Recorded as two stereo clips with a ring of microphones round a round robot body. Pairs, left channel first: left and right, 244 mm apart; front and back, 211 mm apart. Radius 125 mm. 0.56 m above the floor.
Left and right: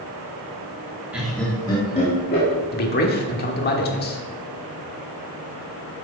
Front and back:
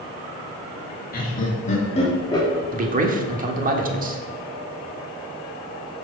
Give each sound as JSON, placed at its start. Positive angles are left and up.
{"t": 1.1, "sound": "laughter", "azimuth_deg": -5, "distance_m": 1.4}
{"t": 2.7, "sound": "a man speaking", "azimuth_deg": 135, "distance_m": 1.2}